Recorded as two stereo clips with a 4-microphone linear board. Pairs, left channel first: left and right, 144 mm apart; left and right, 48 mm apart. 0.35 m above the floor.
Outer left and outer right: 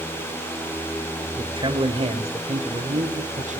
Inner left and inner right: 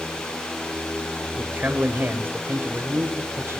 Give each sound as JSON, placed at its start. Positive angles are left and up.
{"t": 1.4, "sound": "a man speaking", "side_deg": -30, "distance_m": 1.4}